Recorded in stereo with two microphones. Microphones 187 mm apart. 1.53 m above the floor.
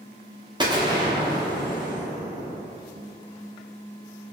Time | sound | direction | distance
0.6 | an explosion | 25° right (ahead or behind) | 0.7 m